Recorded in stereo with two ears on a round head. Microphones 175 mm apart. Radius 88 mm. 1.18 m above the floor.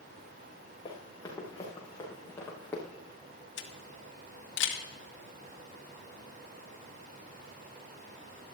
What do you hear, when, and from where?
0.8 s running footsteps: 20° left (ahead or behind), 5.5 m; by 2.8 s 10° left (ahead or behind), 5.5 m
3.6 s a camera shutter: 65° left (ahead or behind), 1.6 m